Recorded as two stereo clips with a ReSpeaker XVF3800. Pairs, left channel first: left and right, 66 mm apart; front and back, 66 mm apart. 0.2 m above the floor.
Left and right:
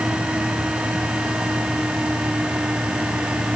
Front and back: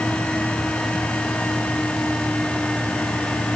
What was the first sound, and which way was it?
Only background noise.